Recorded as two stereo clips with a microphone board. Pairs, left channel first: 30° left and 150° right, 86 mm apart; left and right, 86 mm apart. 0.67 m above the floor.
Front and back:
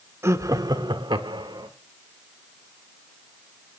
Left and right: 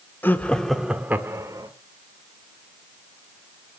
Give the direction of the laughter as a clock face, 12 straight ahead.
7 o'clock.